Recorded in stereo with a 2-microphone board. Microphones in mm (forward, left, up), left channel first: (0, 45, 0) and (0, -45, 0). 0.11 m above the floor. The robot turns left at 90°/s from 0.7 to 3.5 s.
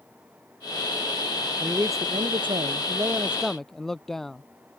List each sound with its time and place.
1.6 s a man speaking: 15° right; by 4.4 s 175° left